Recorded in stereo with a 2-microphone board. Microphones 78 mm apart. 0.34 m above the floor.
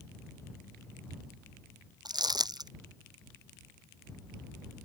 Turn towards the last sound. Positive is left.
turn(degrees=-65)  # may be behind; listen again after turning